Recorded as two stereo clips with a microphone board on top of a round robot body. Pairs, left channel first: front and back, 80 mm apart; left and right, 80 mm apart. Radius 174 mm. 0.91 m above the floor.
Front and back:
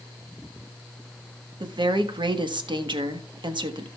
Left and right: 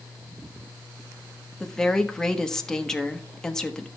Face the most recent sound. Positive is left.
turn(degrees=170)